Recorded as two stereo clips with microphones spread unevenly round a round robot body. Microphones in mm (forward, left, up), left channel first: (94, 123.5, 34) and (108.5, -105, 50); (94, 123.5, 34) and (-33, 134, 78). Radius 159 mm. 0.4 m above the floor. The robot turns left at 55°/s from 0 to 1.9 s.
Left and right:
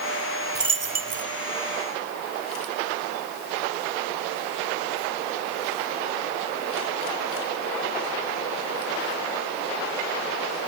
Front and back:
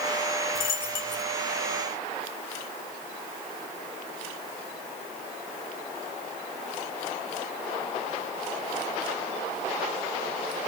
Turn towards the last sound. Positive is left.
turn(degrees=-85)